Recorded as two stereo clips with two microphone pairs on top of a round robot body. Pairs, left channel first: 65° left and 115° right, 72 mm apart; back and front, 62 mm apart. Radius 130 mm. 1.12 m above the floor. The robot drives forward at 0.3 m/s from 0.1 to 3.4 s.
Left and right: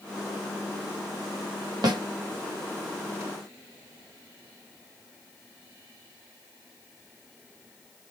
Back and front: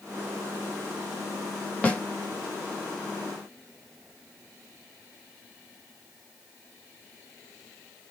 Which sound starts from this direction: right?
A snare drum, at 1.8 s.